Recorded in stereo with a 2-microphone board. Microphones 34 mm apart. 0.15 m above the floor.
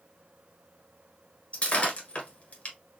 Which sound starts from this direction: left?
Breaking glass, at 1.5 s.